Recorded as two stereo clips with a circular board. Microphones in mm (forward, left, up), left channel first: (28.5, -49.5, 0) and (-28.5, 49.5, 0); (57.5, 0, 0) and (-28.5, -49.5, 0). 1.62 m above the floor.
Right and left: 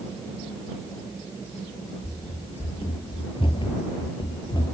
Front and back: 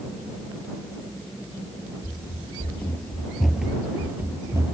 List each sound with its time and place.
2.0 s running footsteps: 20° right; by 4.8 s 100° right